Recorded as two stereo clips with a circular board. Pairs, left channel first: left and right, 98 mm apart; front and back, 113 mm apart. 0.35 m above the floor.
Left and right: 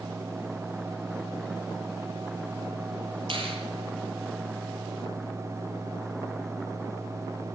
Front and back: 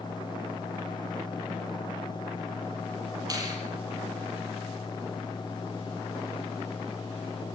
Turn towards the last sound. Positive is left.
turn(degrees=-120)